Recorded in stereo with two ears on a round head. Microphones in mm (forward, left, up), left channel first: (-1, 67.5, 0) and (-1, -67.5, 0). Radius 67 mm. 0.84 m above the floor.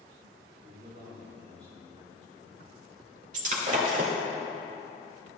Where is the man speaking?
50° right (ahead or behind), 3 m; by 2.7 s 25° right (ahead or behind), 2 m.